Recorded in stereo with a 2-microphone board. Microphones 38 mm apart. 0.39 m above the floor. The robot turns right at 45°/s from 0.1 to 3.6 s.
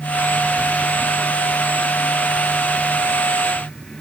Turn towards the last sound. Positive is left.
No sound to turn to.